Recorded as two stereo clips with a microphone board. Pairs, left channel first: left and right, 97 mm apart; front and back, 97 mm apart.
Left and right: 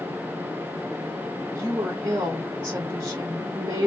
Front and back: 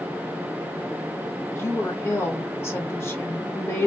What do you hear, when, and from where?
1.6 s a woman speaking: 45° right, 1.4 m